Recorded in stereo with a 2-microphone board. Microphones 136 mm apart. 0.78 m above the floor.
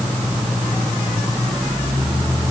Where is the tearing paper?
I don't hear tearing paper.